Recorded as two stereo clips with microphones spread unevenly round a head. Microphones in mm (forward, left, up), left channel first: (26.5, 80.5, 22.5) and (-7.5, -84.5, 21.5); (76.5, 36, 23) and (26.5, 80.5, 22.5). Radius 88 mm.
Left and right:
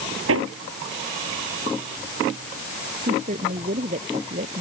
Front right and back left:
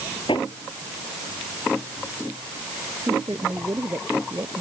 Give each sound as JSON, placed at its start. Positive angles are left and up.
{"t": 0.3, "sound": "hammering", "azimuth_deg": -95}
{"t": 3.1, "sound": "a woman speaking", "azimuth_deg": -155}